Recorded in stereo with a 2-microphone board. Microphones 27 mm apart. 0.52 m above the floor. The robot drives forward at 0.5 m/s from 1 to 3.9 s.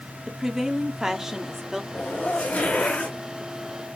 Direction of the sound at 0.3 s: 15° right (ahead or behind).